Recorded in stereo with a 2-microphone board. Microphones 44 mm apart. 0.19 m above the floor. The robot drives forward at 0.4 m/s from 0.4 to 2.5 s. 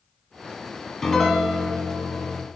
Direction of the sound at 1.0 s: 10° left (ahead or behind).